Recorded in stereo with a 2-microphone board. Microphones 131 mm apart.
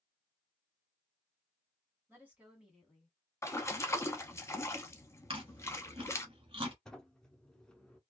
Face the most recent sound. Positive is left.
turn(degrees=5)  # may be behind; listen again after turning